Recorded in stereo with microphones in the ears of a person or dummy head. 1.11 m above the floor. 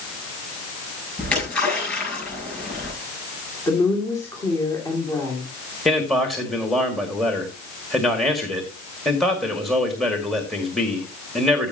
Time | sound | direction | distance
1.2 | a splash | 15° left (ahead or behind) | 8 m
3.7 | a woman speaking | 20° left (ahead or behind) | 2.5 m
5.8 | a man speaking | centre (ahead or behind) | 1.9 m